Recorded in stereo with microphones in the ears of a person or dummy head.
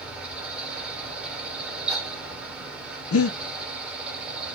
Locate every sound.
0.0 s a fan: 5° right (ahead or behind), 1.0 m
3.1 s breathing: 75° left (ahead or behind), 0.7 m